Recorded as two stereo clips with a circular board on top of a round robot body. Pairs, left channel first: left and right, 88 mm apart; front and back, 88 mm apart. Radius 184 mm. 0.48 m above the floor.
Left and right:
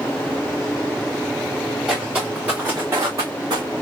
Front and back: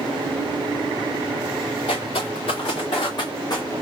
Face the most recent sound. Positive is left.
turn(degrees=-50)